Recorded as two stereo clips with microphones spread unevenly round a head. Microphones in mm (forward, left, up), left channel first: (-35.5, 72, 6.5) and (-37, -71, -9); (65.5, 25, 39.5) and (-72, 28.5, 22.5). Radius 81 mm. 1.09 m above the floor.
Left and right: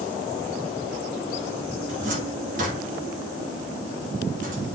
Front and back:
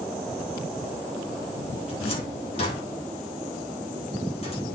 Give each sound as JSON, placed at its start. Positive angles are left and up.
{"t": 1.9, "sound": "a cupboard door", "azimuth_deg": -55, "distance_m": 2.0}